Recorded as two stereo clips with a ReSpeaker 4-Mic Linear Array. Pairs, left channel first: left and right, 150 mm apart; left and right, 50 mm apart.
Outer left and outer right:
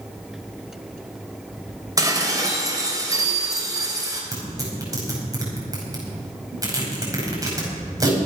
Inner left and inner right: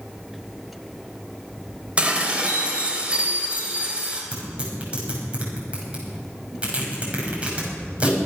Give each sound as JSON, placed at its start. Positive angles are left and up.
{"t": 2.0, "sound": "dishes clattering", "side_deg": -25, "distance_m": 3.0}
{"t": 4.3, "sound": "tearing paper", "side_deg": -25, "distance_m": 5.5}